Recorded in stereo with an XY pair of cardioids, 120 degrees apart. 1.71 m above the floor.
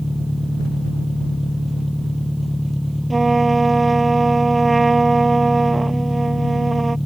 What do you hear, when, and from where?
0.0 s an engine running: 10° left
3.1 s a trumpet: 15° right